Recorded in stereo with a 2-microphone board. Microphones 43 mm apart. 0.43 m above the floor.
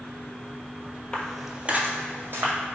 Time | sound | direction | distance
1.1 | footsteps | 25° left (ahead or behind) | 0.6 m